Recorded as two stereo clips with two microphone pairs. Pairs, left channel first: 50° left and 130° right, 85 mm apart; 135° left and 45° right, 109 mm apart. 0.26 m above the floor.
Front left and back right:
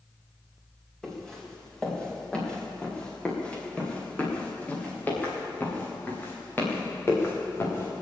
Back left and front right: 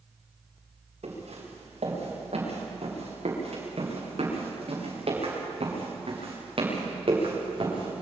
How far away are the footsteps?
About 8.5 m.